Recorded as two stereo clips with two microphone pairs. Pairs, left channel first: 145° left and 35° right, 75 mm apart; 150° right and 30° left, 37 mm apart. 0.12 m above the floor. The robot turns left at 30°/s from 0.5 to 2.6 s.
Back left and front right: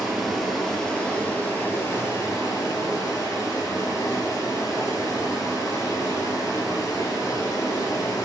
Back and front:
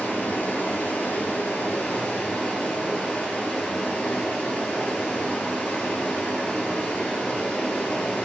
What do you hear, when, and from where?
0.0 s running water: 125° right, 0.9 m; by 8.2 s 175° left, 0.9 m